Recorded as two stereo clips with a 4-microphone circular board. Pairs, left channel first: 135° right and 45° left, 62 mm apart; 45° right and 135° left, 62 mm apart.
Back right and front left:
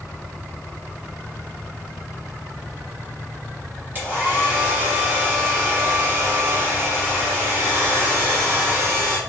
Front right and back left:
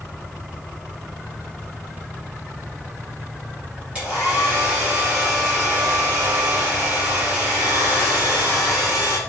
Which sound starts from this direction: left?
A hair dryer, at 4.0 s.